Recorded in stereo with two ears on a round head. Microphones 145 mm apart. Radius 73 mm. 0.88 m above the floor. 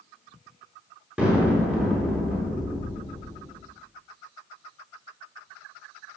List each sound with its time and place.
1.2 s an explosion: 5° right (ahead or behind), 7 m